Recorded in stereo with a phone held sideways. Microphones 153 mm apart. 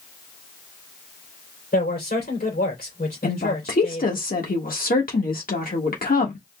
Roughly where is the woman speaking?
Left.